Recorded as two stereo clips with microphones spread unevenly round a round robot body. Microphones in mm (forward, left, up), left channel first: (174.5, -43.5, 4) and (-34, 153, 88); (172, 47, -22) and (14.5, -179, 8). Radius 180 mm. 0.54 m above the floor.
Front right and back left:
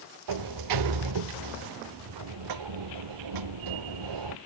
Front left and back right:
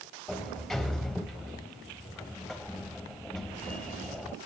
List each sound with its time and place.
0.3 s a sliding door: 145° left, 0.6 m